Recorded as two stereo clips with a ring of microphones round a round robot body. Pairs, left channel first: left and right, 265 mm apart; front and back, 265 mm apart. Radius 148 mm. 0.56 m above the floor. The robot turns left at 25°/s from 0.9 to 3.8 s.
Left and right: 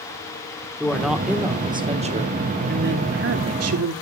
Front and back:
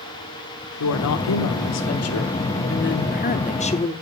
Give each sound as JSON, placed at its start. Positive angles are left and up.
{"t": 0.8, "sound": "a woman speaking", "azimuth_deg": 5, "distance_m": 1.4}